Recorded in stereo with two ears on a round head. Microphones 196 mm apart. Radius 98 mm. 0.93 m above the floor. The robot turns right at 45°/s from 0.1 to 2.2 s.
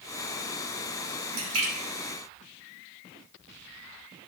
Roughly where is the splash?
Right.